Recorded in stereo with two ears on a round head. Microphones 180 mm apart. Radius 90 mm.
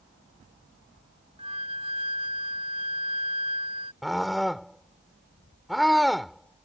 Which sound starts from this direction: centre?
A scream, at 4.0 s.